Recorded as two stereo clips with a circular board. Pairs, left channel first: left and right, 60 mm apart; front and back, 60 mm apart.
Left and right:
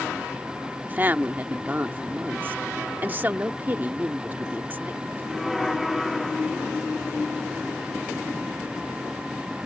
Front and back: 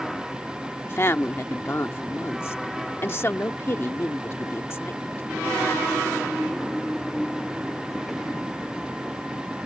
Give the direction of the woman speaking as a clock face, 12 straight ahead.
1 o'clock.